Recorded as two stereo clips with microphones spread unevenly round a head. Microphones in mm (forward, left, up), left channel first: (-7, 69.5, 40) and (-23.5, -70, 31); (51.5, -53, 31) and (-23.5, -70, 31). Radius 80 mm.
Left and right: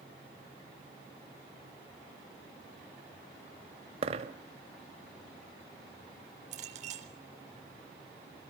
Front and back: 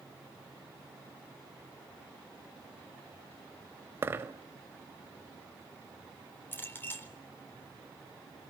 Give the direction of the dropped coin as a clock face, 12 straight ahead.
4 o'clock.